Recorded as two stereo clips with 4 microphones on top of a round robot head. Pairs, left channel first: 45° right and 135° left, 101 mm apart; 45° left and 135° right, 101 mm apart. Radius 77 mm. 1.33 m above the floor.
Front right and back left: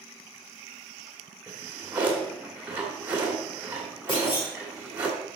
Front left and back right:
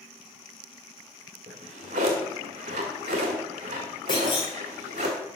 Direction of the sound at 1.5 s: 150° right.